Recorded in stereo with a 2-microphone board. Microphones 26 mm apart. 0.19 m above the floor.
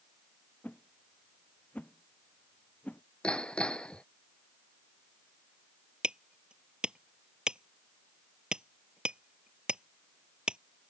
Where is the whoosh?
80° left.